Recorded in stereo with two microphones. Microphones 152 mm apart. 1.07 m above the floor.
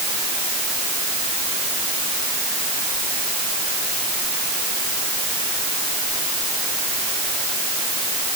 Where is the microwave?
I don't hear a microwave.